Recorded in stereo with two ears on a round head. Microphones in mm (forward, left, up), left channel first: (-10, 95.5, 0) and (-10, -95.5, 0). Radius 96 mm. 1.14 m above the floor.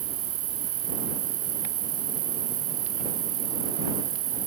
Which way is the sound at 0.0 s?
45° right (ahead or behind).